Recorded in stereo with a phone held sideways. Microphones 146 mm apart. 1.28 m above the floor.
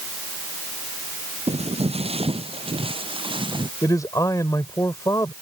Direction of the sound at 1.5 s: 40° right (ahead or behind).